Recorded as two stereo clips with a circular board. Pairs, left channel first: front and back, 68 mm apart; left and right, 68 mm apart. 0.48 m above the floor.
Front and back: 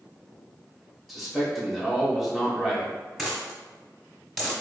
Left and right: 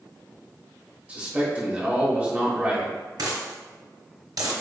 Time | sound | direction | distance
1.1 | a man speaking | 95° right | 1.3 m
3.2 | a dropped coin | 90° right | 1.4 m